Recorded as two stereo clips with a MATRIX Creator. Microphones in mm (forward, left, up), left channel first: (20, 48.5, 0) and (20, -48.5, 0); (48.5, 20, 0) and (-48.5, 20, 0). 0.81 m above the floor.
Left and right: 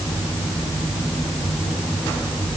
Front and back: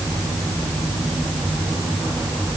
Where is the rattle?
No rattle in this recording.